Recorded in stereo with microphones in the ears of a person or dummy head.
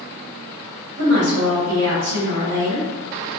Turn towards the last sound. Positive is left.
turn(degrees=-40)  # may be behind; listen again after turning